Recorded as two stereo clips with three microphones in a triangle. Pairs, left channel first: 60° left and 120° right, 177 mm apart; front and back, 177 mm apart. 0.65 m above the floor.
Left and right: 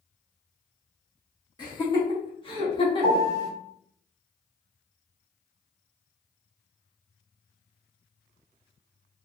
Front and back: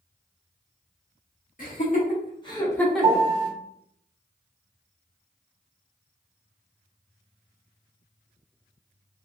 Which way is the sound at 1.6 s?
Straight ahead.